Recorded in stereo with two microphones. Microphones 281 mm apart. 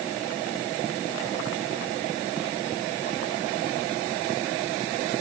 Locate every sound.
Only background noise.